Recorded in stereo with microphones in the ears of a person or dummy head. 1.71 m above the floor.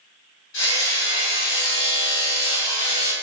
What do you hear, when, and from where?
0.5 s hammering: 70° left (ahead or behind), 3.5 m